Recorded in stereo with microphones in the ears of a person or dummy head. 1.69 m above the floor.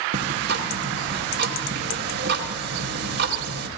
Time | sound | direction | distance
0.1 | ticking | 65° right (ahead or behind) | 1.9 m